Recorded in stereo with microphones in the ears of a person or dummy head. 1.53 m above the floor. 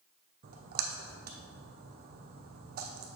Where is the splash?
50° right (ahead or behind), 0.9 m.